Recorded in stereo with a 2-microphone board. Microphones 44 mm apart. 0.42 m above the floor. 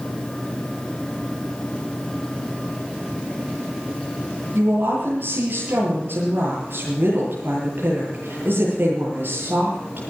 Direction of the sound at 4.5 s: 55° right (ahead or behind).